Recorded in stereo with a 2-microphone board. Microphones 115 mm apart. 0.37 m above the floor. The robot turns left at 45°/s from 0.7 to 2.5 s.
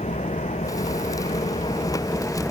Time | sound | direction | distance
0.0 | an engine running | 95° left | ?